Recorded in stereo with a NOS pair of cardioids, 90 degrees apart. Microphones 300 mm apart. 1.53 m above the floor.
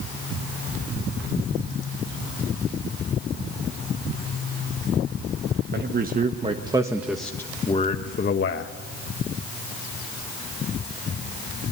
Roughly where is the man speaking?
Ahead right.